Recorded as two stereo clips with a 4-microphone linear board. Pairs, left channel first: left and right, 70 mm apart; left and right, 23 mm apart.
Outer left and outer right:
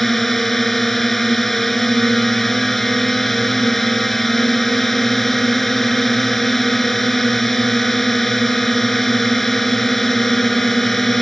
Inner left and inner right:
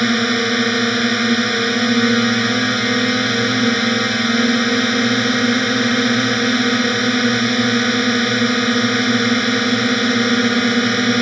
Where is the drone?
Centre (ahead or behind).